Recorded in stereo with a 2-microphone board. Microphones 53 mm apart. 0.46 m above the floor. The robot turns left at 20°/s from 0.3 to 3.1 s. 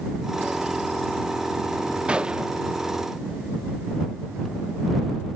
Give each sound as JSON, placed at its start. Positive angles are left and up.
{"t": 2.1, "sound": "a gunshot", "side_deg": -20}